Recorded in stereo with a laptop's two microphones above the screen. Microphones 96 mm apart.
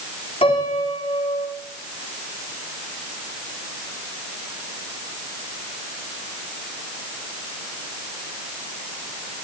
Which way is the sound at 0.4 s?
80° left.